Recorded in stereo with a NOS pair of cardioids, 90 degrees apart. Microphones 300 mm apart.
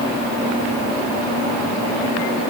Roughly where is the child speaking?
No child speaking in this recording.